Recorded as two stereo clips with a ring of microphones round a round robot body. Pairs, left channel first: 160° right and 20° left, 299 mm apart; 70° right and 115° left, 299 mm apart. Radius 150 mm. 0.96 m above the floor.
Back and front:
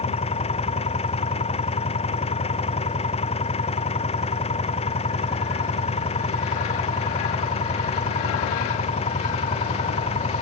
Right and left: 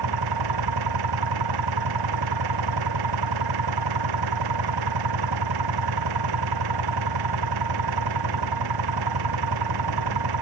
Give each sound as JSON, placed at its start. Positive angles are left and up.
{"t": 0.0, "sound": "an engine running", "azimuth_deg": 130}